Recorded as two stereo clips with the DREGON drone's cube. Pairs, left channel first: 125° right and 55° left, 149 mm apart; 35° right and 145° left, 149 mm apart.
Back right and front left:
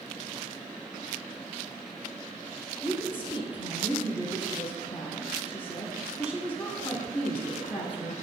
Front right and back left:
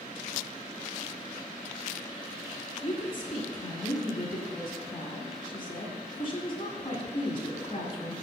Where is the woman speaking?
80° right, 1.8 m.